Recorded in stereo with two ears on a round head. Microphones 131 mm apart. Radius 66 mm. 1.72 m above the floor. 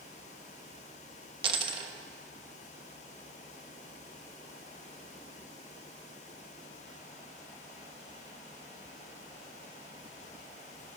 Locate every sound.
1.4 s a dropped coin: 35° right (ahead or behind), 1.2 m